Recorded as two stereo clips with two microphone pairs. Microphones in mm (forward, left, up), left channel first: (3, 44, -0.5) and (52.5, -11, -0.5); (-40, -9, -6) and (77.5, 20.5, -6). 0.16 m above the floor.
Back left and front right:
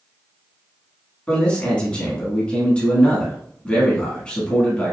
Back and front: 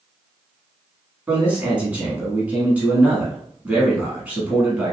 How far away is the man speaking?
About 1.1 m.